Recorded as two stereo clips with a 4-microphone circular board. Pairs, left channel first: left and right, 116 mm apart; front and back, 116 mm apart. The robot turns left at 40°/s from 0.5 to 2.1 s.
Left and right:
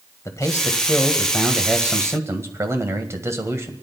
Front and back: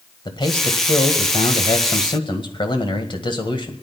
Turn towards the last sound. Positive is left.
turn(degrees=-30)